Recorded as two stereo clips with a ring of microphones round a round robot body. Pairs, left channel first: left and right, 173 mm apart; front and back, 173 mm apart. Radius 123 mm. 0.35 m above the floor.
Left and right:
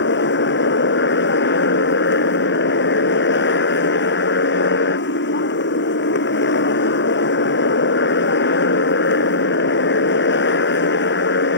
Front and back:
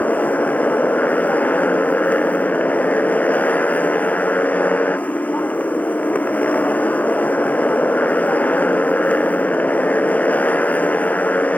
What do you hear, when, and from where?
0.0 s a motorcycle: 80° left